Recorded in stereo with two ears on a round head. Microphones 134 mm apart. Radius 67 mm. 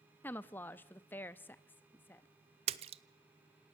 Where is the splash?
45° right (ahead or behind), 0.8 m.